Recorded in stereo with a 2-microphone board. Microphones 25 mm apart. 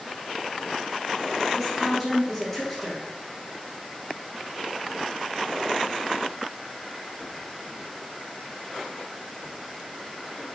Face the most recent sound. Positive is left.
turn(degrees=10)  # may be behind; listen again after turning